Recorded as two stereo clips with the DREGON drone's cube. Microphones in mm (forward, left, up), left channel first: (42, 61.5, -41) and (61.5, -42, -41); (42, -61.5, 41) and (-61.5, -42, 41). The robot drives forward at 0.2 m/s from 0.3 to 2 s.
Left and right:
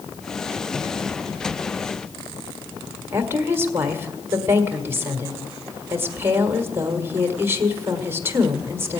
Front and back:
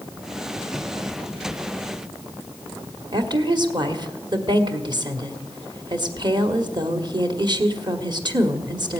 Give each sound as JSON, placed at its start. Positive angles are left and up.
{"t": 3.1, "sound": "a woman speaking", "azimuth_deg": -145, "distance_m": 1.6}